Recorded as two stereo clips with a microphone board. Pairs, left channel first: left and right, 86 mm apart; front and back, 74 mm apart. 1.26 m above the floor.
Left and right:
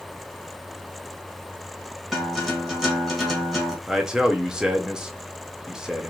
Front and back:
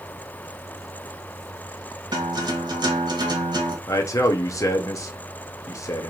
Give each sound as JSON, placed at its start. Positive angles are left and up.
{"t": 2.1, "sound": "a guitar", "azimuth_deg": -175, "distance_m": 1.0}
{"t": 3.9, "sound": "a man speaking", "azimuth_deg": -10, "distance_m": 0.7}